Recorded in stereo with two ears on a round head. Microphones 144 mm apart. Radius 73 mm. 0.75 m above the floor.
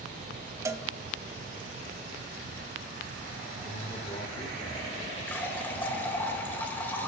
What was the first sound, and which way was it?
A cowbell, 20° right (ahead or behind).